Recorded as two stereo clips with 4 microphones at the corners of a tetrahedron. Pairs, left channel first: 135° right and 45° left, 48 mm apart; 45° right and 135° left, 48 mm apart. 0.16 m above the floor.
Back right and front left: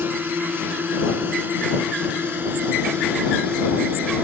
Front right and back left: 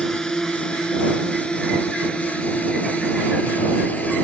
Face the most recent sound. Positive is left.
turn(degrees=5)